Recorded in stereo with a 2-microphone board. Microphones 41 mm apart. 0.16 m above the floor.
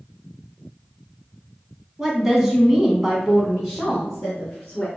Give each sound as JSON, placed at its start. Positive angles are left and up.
{"t": 2.0, "sound": "a woman speaking", "side_deg": -10, "distance_m": 1.1}